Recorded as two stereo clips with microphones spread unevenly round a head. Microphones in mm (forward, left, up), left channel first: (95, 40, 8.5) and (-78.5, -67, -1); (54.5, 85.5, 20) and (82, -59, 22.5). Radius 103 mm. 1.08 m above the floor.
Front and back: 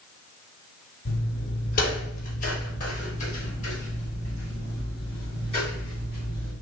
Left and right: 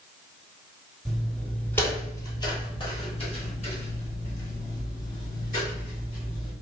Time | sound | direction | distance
1.1 | footsteps | 10° left | 1.5 m